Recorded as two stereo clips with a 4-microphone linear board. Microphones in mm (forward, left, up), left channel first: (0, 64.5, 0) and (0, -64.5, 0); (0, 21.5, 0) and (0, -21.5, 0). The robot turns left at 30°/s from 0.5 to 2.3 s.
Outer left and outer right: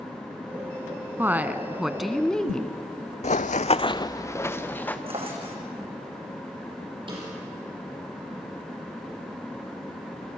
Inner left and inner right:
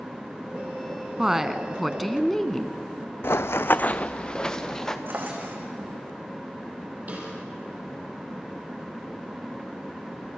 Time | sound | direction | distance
1.2 | a woman speaking | 155° right | 1.3 m
3.2 | running footsteps | 60° left (ahead or behind) | 0.6 m
5.1 | a drawer | 45° right (ahead or behind) | 4 m
7.1 | a snare drum | 40° right (ahead or behind) | 7.5 m